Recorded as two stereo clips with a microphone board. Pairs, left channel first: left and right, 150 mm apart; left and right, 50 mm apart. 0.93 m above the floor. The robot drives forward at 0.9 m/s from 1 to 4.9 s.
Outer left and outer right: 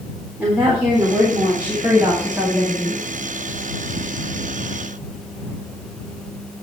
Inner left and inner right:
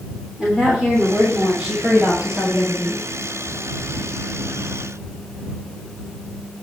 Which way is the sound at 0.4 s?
10° right (ahead or behind).